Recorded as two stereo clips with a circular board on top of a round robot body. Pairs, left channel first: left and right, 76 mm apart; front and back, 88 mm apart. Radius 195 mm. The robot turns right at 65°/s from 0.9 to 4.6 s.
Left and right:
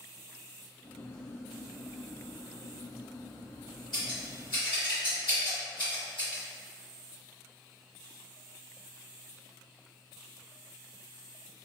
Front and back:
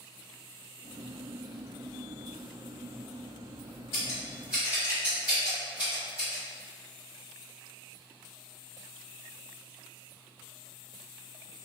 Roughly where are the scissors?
Ahead left.